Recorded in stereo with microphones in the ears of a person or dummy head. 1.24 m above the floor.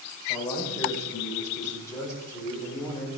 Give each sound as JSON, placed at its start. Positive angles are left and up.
{"t": 0.3, "sound": "a man speaking", "side_deg": 15, "distance_m": 5.0}